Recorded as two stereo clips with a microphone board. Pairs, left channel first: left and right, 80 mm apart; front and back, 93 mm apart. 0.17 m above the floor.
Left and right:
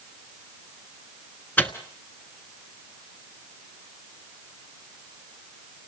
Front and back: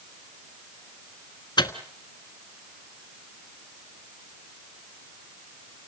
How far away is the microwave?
About 1.3 m.